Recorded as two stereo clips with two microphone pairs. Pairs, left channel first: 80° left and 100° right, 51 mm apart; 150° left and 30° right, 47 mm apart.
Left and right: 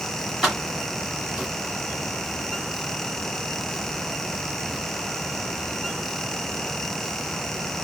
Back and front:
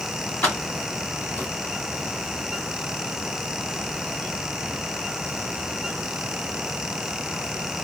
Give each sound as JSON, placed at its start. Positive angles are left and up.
{"t": 0.4, "sound": "keys jangling", "azimuth_deg": 175, "distance_m": 3.0}